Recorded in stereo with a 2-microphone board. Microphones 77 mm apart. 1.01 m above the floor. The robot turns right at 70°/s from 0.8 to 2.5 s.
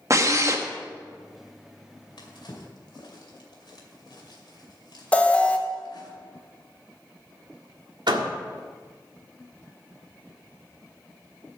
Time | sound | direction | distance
0.1 | a drill | 40° right (ahead or behind) | 1.1 m
2.2 | a drawer | 85° left | 2.5 m
5.1 | an alarm | 15° left (ahead or behind) | 0.9 m
8.1 | a door slam | 70° right (ahead or behind) | 1.6 m